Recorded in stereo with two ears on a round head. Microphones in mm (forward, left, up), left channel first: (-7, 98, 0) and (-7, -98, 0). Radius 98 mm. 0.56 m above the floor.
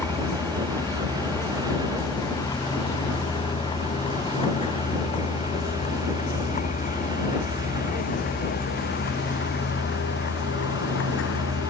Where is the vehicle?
10° left (ahead or behind); by 11.7 s 60° left (ahead or behind).